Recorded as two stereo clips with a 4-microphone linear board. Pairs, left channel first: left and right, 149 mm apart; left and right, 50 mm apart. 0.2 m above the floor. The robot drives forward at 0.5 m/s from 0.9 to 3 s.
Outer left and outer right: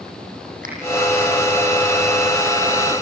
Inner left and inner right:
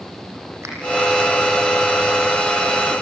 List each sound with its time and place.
0.6 s a finger snap: 65° right (ahead or behind), 6 m